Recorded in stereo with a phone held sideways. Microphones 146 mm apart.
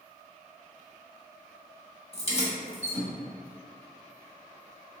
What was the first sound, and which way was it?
Keys jangling, 45° left (ahead or behind).